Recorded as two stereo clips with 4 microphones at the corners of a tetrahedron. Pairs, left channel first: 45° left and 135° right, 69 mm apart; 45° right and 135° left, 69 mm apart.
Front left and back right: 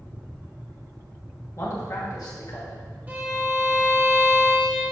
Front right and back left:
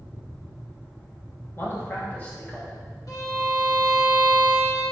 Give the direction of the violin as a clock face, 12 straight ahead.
2 o'clock.